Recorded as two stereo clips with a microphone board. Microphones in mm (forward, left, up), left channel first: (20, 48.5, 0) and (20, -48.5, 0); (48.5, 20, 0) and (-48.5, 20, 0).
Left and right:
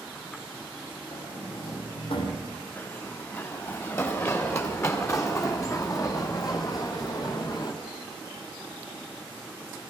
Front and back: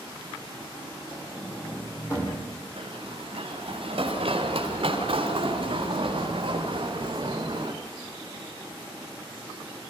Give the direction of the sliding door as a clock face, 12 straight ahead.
10 o'clock.